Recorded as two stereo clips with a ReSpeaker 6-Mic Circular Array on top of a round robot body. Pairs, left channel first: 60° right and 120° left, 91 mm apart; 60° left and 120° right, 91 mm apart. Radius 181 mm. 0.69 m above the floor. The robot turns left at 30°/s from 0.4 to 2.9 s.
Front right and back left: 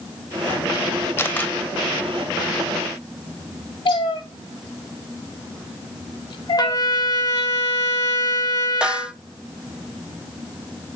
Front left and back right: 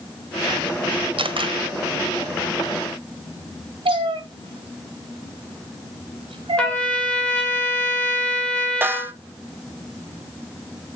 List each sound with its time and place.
1.2 s a camera shutter: 125° right, 1.5 m; by 1.6 s 140° right, 1.5 m
3.9 s a cat meowing: 90° right, 1.4 m
6.6 s a trumpet: 20° right, 2 m
8.8 s a snare drum: 170° right, 0.8 m